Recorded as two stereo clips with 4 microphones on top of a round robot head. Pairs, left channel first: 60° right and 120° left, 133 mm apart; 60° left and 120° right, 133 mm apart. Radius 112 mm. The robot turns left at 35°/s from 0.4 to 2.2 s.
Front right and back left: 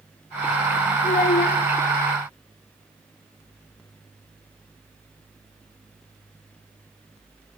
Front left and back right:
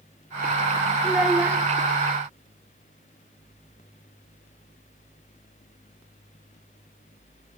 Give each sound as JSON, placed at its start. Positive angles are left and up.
{"t": 1.0, "sound": "a child speaking", "azimuth_deg": -35, "distance_m": 1.0}